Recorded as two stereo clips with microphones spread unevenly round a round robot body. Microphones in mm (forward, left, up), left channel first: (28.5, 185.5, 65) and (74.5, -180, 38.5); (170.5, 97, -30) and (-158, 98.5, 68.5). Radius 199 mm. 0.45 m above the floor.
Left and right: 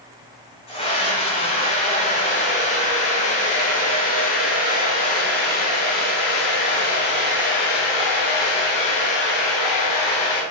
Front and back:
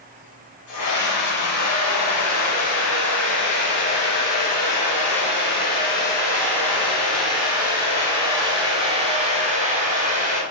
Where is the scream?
25° left, 4 m; by 10.4 s 110° left, 4 m.